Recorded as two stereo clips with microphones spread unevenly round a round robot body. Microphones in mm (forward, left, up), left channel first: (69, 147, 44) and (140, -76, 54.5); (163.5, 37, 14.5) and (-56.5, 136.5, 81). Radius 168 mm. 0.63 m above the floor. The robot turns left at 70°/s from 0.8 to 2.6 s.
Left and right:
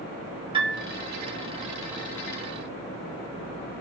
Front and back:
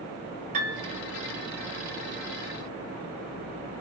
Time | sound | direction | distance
0.5 | a piano | 135° right | 0.6 m